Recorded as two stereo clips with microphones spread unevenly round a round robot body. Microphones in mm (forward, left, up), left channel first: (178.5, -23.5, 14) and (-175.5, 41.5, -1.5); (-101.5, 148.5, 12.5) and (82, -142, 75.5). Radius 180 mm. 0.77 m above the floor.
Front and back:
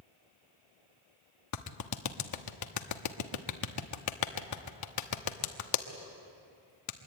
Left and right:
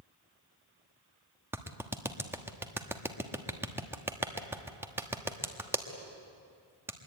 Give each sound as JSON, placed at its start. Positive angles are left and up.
{"t": 1.5, "sound": "a clap", "azimuth_deg": 30, "distance_m": 1.2}